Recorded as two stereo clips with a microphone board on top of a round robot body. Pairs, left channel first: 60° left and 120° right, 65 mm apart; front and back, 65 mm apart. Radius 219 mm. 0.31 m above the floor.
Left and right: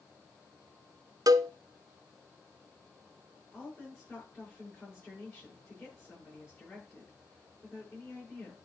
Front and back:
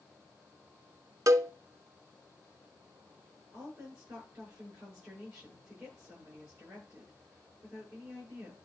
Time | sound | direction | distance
1.3 | a cowbell | 140° right | 0.6 m
3.5 | a woman speaking | 125° left | 7 m